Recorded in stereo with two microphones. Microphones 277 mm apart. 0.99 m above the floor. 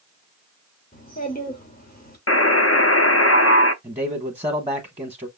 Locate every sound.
0.9 s a child speaking: 30° left (ahead or behind), 3 m
2.3 s a buzzer: 55° left (ahead or behind), 0.6 m
3.8 s a man speaking: 20° right (ahead or behind), 1.3 m